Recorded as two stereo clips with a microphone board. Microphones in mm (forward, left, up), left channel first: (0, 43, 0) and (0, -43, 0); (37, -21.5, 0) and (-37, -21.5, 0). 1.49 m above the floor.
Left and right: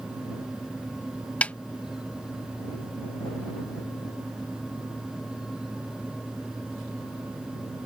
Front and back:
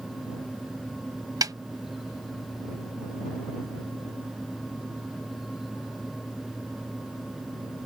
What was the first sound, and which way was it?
A snare drum, 160° left.